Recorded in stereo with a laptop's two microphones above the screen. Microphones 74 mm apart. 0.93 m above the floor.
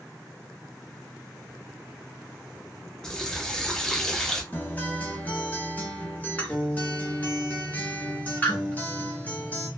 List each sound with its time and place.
3.0 s a running tap: 5° left (ahead or behind), 0.9 m
4.5 s a guitar: 20° left (ahead or behind), 0.9 m